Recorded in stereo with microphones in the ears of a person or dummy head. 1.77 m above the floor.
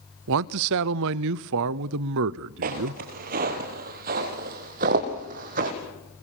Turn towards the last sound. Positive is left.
turn(degrees=-45)  # may be behind; listen again after turning